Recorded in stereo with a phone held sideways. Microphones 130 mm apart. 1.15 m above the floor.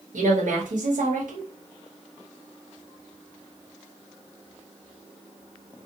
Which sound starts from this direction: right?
A woman speaking, at 0.1 s.